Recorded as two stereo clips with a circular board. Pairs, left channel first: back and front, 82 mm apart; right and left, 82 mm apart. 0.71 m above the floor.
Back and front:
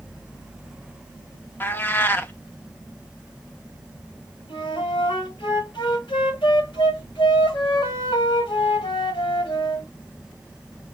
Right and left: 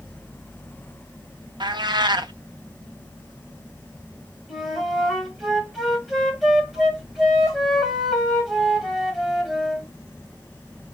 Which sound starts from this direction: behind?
A flute, at 4.5 s.